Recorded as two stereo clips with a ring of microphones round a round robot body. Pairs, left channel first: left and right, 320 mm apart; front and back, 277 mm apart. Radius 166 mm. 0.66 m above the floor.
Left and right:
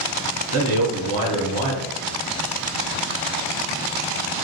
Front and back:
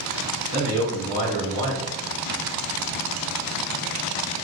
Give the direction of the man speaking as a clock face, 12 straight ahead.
4 o'clock.